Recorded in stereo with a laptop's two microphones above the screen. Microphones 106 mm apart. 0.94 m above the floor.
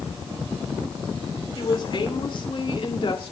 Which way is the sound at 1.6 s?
45° left (ahead or behind).